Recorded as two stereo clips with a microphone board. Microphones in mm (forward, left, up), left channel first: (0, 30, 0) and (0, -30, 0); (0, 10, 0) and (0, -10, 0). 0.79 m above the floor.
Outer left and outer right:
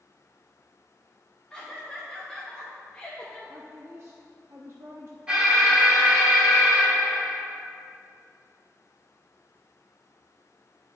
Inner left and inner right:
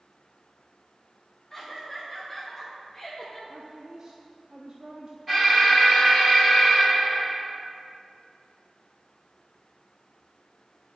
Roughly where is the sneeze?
No sneeze in this recording.